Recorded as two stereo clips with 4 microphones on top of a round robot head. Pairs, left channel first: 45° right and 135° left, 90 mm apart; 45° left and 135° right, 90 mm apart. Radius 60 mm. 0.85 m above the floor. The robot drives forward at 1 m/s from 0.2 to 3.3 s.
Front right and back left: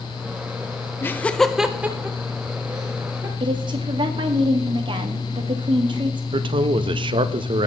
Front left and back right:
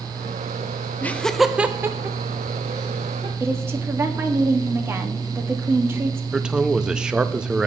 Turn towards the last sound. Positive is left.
turn(degrees=145)